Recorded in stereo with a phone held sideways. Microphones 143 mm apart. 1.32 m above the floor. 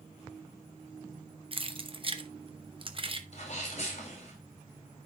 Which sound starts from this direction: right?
Keys jangling, at 1.5 s.